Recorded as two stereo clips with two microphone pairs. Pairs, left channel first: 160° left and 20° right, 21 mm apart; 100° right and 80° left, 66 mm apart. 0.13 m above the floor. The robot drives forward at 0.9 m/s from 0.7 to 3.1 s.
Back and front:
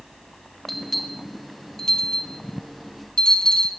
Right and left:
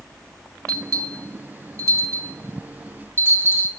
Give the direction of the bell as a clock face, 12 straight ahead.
9 o'clock.